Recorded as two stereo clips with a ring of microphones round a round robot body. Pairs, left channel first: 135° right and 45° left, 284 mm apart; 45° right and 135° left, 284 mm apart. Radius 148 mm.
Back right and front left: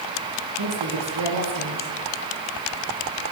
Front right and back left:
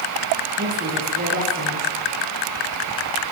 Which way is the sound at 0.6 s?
75° left.